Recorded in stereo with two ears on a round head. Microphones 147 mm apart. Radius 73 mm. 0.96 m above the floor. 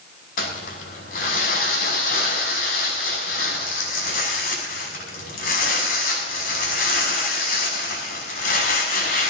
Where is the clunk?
I don't hear a clunk.